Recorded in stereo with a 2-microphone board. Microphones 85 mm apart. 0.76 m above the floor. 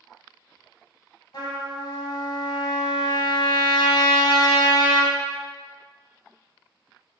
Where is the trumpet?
65° left (ahead or behind), 1.1 m.